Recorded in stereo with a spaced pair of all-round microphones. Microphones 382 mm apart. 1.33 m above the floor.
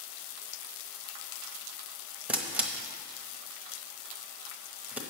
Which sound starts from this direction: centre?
A camera shutter, at 2.3 s.